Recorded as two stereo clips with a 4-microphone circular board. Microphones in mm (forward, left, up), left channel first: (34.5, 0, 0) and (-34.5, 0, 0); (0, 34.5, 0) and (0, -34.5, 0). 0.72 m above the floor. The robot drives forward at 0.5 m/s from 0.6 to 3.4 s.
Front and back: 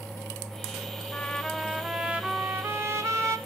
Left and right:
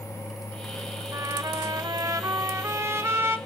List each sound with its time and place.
1.1 s a trumpet: 65° right, 0.7 m; by 3.4 s 145° right, 1.1 m